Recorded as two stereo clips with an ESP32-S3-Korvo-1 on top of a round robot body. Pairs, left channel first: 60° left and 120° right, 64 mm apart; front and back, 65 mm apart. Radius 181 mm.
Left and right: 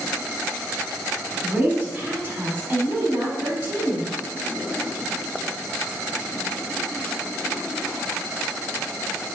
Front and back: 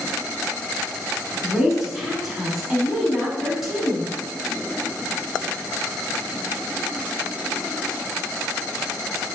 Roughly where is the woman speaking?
Right.